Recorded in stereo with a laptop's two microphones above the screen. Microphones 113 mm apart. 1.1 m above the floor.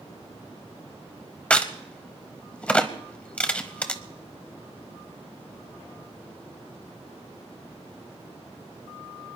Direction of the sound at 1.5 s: 10° left (ahead or behind).